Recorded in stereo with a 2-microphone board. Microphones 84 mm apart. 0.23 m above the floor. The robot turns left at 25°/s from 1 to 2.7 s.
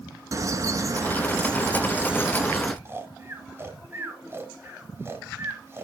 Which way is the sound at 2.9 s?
30° right (ahead or behind).